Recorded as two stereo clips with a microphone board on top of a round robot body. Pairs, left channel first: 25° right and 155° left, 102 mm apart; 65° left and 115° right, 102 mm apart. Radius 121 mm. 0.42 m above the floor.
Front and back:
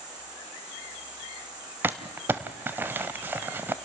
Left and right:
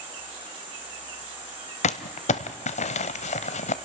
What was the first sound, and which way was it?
An insect, 150° right.